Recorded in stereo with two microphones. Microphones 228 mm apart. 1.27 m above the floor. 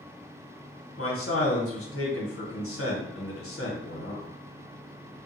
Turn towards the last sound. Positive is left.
turn(degrees=75)  # may be behind; listen again after turning